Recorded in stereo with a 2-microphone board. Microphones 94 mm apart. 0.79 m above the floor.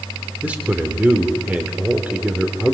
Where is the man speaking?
15° right (ahead or behind), 2.5 m.